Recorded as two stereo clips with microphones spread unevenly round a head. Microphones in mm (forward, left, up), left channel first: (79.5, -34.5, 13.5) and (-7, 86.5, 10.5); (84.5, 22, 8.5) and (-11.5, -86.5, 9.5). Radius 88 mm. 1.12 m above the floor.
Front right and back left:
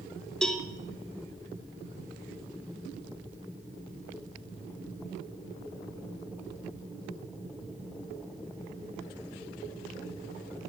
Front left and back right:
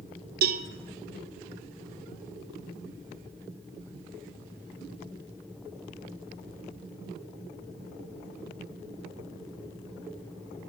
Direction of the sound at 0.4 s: 140° right.